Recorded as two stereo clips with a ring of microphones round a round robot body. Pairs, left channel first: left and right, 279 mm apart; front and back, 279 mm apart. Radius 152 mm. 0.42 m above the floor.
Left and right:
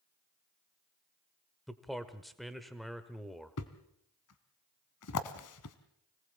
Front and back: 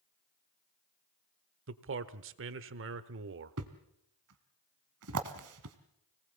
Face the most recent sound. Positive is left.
turn(degrees=135)